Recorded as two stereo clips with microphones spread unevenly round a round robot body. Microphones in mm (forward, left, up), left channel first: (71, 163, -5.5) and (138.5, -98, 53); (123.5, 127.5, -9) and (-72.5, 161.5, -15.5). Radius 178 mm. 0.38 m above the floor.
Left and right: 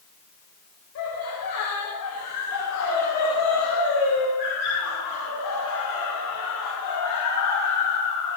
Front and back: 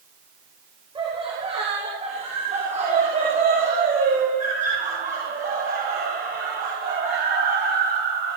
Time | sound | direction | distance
0.9 | laughter | 105° left | 7.5 m